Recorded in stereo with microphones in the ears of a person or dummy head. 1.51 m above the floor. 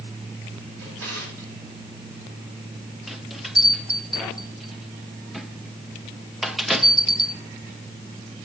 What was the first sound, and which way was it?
A drawer, 70° right (ahead or behind).